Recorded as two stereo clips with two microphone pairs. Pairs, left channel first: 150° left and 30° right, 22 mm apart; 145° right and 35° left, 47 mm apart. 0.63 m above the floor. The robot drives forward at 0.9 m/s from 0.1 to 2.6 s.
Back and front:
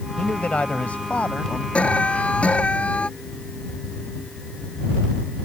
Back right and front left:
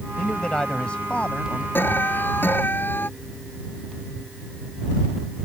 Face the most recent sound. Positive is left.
turn(degrees=170)